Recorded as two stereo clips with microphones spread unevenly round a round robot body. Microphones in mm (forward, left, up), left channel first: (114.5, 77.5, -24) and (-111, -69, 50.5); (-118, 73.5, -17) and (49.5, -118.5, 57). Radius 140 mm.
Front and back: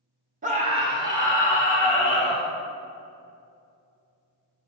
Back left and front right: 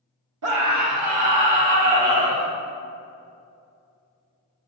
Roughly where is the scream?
Right.